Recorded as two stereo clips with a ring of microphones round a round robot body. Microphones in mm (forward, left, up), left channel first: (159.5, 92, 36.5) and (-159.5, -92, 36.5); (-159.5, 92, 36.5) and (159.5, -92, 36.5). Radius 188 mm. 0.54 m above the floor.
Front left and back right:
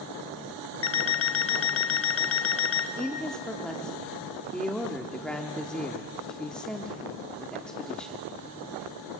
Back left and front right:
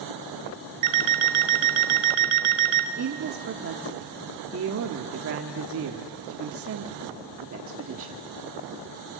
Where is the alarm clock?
25° right, 1.3 m.